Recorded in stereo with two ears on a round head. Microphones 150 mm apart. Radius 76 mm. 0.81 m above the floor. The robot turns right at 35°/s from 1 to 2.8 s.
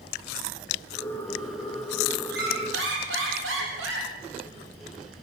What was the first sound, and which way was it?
A squeak, 70° right (ahead or behind).